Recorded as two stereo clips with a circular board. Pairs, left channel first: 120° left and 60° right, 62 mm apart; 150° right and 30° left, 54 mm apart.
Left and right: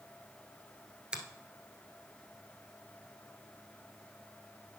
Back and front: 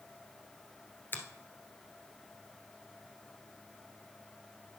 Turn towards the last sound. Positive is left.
turn(degrees=-130)